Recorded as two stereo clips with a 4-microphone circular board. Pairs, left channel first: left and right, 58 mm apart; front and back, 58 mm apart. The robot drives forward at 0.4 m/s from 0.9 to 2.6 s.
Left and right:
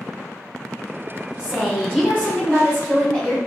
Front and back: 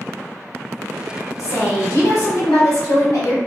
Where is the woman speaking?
15° left, 1.4 m; by 3.4 s 20° left, 1.0 m.